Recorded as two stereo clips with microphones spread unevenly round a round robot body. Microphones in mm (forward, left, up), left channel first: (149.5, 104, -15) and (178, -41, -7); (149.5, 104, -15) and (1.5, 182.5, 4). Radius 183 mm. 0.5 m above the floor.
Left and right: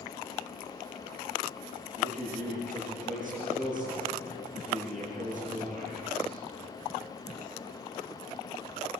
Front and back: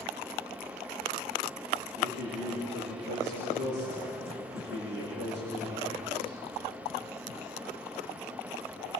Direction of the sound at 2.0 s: 175° right.